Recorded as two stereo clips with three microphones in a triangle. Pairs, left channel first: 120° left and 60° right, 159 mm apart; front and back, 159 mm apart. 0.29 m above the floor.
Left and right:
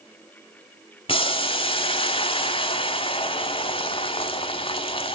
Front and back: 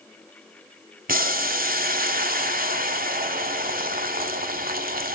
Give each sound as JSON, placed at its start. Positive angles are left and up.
{"t": 1.1, "sound": "boiling", "azimuth_deg": 175, "distance_m": 1.2}